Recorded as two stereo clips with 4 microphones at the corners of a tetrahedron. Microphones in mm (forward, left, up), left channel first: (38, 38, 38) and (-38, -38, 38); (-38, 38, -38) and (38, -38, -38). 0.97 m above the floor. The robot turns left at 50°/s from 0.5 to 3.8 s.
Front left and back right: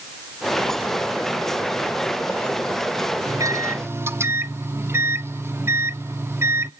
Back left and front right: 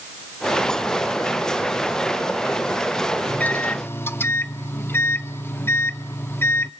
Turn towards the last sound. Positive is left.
turn(degrees=180)